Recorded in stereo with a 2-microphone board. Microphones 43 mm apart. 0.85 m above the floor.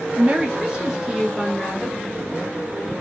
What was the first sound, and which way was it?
A woman speaking, 30° right (ahead or behind).